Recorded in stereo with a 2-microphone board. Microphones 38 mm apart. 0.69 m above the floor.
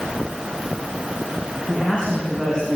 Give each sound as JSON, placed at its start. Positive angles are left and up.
{"t": 1.7, "sound": "a man speaking", "side_deg": 30, "distance_m": 6.0}